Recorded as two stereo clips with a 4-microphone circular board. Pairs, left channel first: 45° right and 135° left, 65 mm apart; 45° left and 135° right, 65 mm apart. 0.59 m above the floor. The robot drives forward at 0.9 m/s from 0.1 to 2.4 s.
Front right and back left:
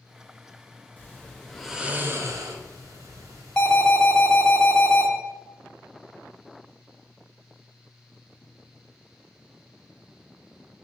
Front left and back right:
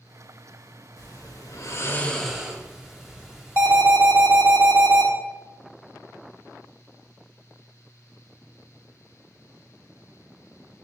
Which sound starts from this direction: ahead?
Snoring, at 1.0 s.